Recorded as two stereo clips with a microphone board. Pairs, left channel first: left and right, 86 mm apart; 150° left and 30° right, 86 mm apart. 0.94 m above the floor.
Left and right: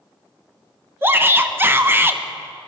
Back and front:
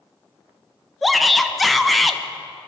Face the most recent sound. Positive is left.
turn(degrees=-120)